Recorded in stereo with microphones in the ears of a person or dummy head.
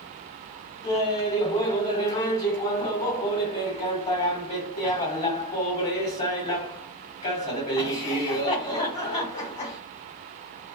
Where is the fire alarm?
I don't hear a fire alarm.